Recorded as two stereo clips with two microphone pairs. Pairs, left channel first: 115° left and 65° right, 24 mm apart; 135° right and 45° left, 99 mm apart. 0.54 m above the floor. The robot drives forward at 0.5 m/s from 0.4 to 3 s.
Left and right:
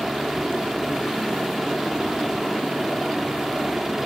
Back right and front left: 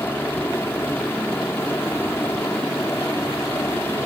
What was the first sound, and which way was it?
A helicopter, 105° right.